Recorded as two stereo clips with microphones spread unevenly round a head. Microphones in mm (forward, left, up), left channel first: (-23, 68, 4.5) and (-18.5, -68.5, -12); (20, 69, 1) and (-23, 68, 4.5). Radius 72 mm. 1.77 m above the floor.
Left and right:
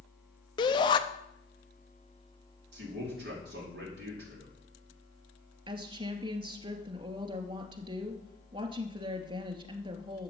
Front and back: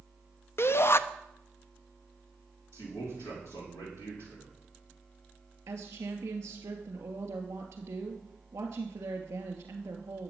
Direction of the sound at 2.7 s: 65° right.